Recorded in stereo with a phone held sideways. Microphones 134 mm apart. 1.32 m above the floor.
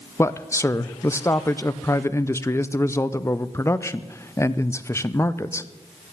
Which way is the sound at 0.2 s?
20° left (ahead or behind).